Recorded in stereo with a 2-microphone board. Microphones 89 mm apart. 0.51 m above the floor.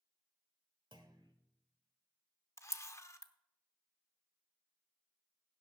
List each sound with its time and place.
0.9 s a clunk: 60° right (ahead or behind), 1.5 m
2.6 s a camera shutter: 35° left (ahead or behind), 0.6 m